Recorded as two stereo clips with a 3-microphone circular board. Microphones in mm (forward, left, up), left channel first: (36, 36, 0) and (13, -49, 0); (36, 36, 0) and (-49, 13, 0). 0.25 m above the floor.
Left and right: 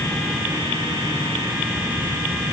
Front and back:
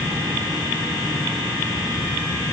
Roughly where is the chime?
I don't hear a chime.